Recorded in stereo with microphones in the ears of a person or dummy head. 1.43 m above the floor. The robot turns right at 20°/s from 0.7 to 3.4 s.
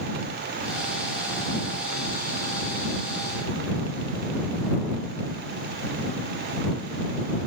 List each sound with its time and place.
Only background noise.